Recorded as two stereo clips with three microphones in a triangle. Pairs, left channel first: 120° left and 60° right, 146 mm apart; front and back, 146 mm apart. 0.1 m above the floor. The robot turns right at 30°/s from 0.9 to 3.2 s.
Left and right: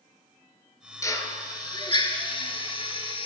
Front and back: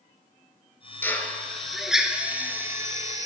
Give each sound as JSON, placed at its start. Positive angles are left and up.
{"t": 1.0, "sound": "a drill", "azimuth_deg": 65, "distance_m": 0.6}